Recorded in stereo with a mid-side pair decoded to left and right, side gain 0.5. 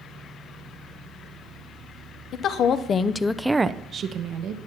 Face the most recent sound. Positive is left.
turn(degrees=-70)